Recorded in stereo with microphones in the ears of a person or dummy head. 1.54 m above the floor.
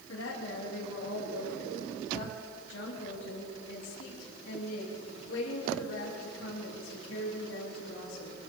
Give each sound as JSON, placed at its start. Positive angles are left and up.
{"t": 0.1, "sound": "a woman speaking", "side_deg": 80, "distance_m": 3.5}